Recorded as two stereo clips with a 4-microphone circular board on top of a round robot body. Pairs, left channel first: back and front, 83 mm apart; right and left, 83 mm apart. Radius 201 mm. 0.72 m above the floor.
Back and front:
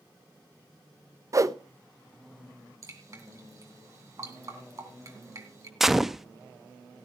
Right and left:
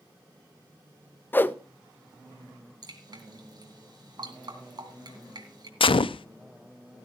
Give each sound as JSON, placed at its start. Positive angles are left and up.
{"t": 1.3, "sound": "a whoosh", "azimuth_deg": -30, "distance_m": 0.9}
{"t": 2.8, "sound": "dripping", "azimuth_deg": 50, "distance_m": 3.0}
{"t": 5.8, "sound": "a gunshot", "azimuth_deg": -85, "distance_m": 0.6}